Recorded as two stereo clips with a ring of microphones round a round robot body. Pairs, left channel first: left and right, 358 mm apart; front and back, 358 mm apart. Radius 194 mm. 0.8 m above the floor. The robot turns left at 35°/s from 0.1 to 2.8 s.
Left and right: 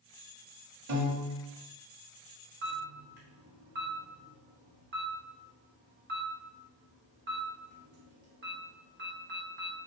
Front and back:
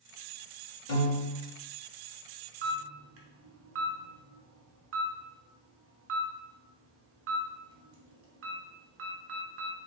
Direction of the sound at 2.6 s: 135° right.